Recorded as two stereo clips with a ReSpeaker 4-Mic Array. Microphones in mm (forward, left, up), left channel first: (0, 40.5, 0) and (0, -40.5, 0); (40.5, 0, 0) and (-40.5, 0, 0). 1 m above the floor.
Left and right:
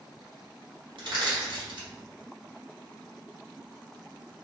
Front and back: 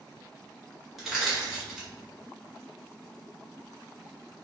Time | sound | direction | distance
1.0 | crushing | 90° right | 1.3 m